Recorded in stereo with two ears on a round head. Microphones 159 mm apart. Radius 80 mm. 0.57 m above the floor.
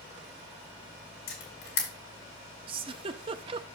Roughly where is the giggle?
Right.